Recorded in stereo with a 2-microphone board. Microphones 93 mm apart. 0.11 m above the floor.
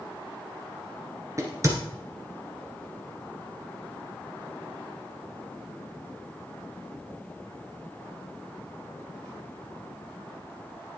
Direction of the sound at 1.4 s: 35° right (ahead or behind).